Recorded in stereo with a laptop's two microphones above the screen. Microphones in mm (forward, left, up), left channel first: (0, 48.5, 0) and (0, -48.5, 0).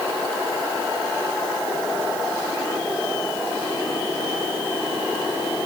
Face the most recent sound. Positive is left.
No sound to turn to.